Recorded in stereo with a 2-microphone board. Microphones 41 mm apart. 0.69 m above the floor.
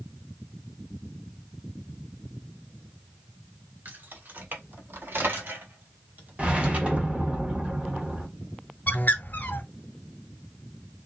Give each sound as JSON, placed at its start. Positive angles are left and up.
{"t": 3.9, "sound": "keys jangling", "side_deg": -50, "distance_m": 1.6}
{"t": 6.4, "sound": "a whoosh", "side_deg": -30, "distance_m": 1.3}
{"t": 8.9, "sound": "a bird", "side_deg": 50, "distance_m": 1.0}